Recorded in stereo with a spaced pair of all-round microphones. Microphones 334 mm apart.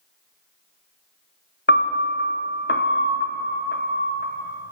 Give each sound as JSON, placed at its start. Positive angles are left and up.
{"t": 1.7, "sound": "a piano", "side_deg": 30, "distance_m": 0.8}